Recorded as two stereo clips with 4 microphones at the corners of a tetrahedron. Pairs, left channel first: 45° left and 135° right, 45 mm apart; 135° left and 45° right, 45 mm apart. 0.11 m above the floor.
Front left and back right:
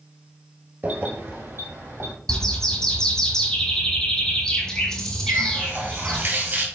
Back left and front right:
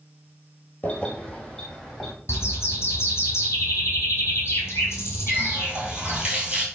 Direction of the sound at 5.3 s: 105° right.